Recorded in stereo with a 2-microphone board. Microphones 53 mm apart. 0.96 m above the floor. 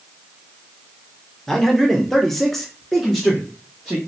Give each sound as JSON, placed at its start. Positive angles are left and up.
{"t": 1.5, "sound": "a man speaking", "side_deg": 5, "distance_m": 0.9}